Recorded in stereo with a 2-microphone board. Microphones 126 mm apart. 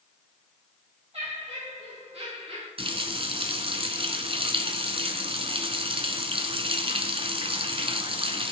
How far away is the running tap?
About 1.3 m.